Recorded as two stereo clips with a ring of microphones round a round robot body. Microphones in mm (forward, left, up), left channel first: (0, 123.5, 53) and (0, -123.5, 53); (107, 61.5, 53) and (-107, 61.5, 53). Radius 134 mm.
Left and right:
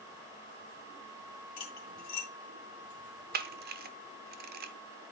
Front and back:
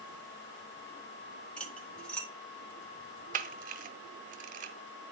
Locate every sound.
1.6 s cutlery clinking: 85° left, 2 m
3.3 s a camera shutter: 135° right, 0.8 m